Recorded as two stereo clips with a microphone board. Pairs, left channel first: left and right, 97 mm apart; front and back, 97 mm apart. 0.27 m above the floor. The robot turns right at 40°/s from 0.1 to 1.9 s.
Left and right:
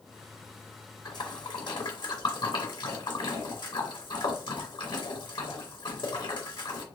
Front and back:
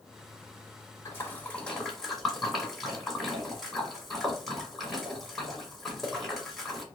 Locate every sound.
1.1 s a splash: 55° left, 1.7 m; by 6.8 s 90° left, 1.7 m